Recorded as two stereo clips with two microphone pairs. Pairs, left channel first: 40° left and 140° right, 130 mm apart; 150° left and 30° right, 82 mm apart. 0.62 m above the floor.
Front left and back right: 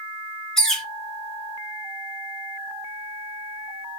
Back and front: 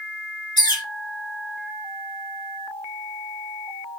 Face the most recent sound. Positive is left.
turn(degrees=125)